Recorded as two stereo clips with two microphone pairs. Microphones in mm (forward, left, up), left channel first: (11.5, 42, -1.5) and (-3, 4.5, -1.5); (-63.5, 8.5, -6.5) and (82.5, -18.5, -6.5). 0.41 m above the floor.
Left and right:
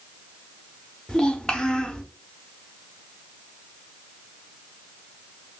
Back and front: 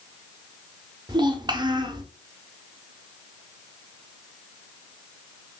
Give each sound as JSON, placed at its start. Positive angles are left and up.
{"t": 1.1, "sound": "a child speaking", "azimuth_deg": 20, "distance_m": 0.6}